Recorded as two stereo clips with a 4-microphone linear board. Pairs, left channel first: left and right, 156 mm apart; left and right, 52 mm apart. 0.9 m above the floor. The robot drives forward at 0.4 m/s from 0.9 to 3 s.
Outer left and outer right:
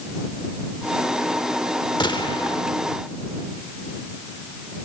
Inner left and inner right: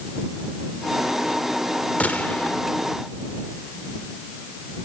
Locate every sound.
2.0 s a gunshot: 30° left (ahead or behind), 1.4 m; by 2.6 s 35° left (ahead or behind), 1.2 m